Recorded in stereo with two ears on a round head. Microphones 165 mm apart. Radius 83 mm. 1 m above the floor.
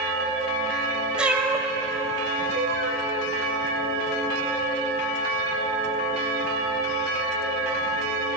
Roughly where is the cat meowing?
Centre.